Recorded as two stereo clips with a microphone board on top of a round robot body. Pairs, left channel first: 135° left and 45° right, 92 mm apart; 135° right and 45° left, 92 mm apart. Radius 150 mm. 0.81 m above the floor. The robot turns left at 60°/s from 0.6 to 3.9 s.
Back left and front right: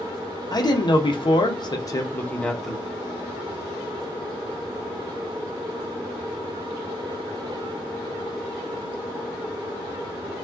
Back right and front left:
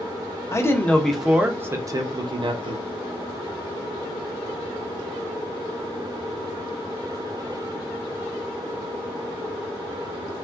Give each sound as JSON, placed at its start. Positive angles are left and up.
{"t": 0.5, "sound": "a man speaking", "azimuth_deg": 170, "distance_m": 0.8}